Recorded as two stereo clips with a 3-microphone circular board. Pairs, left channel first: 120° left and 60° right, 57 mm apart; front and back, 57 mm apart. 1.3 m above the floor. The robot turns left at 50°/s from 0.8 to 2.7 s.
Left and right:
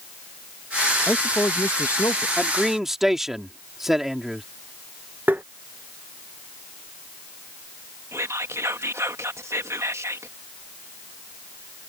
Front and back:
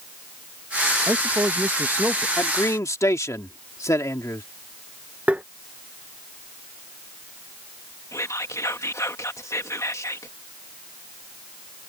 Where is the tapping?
115° right.